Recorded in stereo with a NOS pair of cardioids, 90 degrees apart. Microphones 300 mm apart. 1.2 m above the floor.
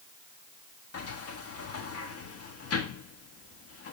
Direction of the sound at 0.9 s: 50° left.